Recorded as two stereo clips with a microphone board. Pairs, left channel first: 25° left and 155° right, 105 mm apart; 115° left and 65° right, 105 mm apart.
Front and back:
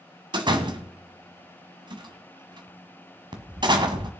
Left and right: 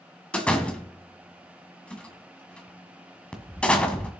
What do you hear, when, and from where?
0.3 s a door slam: 170° right, 1.5 m